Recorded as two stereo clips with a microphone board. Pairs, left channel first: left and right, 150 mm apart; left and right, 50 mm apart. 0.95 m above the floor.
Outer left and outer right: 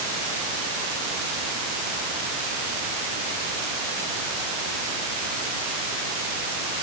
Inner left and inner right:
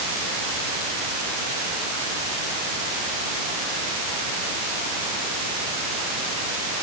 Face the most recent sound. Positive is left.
No sound to turn to.